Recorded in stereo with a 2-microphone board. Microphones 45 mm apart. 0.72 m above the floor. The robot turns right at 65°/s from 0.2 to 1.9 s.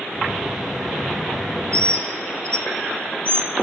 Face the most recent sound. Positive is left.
turn(degrees=25)  # may be behind; listen again after turning